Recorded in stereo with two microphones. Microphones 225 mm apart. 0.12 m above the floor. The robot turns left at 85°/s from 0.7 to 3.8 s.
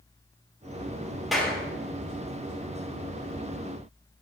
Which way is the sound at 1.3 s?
Centre (ahead or behind).